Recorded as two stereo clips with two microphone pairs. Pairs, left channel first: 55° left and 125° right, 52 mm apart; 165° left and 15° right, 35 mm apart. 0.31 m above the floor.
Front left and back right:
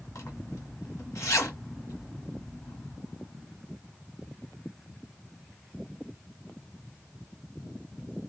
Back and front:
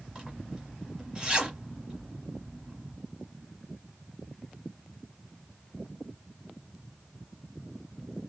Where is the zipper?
55° left, 1.6 m.